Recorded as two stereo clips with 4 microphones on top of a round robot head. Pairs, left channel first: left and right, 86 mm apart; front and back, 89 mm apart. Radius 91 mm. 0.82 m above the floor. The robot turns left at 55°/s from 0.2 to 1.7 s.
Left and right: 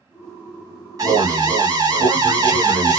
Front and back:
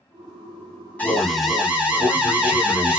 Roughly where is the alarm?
Ahead right.